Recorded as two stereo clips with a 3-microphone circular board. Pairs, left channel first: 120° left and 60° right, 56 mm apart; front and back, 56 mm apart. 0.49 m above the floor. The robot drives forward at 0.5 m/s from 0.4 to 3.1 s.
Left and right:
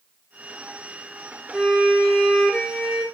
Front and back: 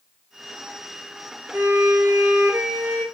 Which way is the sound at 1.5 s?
145° right.